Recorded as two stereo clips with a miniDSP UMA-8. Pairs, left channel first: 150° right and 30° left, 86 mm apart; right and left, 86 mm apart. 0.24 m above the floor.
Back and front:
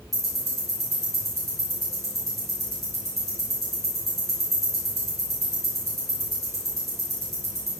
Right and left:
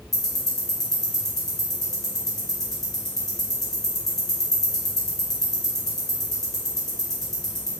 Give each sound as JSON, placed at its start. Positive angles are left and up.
{"t": 0.1, "sound": "ticking", "azimuth_deg": -175, "distance_m": 1.1}